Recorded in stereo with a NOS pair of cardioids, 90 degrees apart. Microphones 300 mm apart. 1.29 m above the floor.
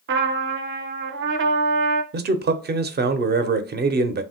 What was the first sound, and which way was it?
A trumpet, 40° right.